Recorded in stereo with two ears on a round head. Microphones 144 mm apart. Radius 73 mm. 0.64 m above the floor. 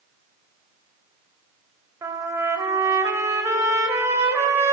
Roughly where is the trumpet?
Centre.